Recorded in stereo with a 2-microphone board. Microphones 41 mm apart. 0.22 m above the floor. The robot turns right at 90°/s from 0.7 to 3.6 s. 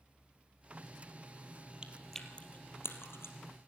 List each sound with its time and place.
1.8 s chewing: 20° right (ahead or behind), 2.5 m; by 3.4 s 65° left (ahead or behind), 2.5 m